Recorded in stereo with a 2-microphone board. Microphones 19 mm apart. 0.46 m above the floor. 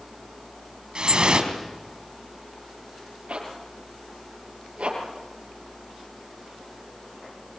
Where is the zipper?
80° right, 6.5 m.